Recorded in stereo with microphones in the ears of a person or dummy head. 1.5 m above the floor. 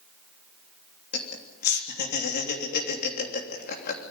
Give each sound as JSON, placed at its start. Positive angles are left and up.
{"t": 1.1, "sound": "laughter", "side_deg": 55, "distance_m": 3.0}